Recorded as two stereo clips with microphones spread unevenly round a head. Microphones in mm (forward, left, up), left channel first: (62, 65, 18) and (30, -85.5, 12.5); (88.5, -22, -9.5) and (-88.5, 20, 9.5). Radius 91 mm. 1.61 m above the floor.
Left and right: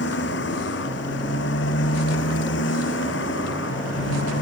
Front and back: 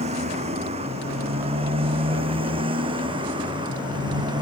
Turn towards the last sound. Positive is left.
turn(degrees=100)